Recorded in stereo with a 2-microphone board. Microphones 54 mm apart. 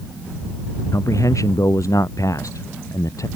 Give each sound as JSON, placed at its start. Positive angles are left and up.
{"t": 0.9, "sound": "a man speaking", "side_deg": 80}